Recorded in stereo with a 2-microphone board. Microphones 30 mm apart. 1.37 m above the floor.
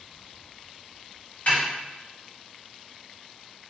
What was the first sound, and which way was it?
A snare drum, 60° left (ahead or behind).